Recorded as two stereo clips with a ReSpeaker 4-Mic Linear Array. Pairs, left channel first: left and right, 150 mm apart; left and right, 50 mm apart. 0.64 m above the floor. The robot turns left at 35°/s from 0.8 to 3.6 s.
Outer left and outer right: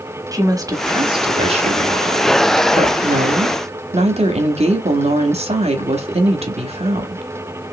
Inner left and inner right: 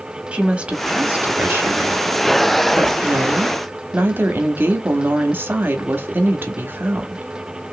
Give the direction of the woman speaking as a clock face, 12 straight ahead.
1 o'clock.